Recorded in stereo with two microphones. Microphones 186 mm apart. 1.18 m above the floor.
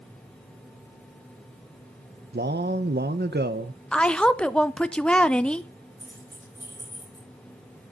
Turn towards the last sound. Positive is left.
turn(degrees=80)